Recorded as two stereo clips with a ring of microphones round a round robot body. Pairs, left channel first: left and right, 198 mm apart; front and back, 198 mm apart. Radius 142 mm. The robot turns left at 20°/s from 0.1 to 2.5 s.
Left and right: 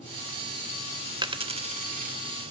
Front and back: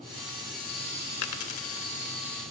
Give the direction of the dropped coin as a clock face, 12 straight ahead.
1 o'clock.